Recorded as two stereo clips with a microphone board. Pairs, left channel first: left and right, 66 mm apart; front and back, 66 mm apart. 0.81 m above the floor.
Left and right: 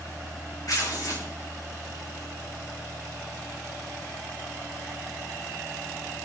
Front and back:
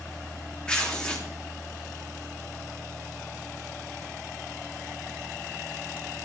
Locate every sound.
0.7 s tearing paper: 75° left, 1.8 m